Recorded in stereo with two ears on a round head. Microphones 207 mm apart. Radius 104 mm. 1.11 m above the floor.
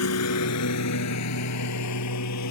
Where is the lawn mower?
75° left (ahead or behind); by 2.5 s 85° left.